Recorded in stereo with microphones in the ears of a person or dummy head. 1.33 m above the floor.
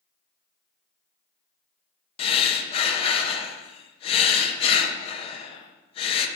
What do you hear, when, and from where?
2.2 s breathing: 35° left (ahead or behind), 0.9 m